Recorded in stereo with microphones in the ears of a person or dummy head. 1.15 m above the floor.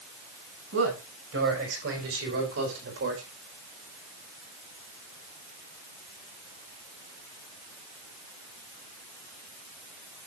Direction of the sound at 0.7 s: 75° right (ahead or behind).